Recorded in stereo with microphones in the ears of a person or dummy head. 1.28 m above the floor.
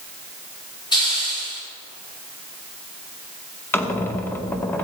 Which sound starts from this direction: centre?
A squeak, at 3.7 s.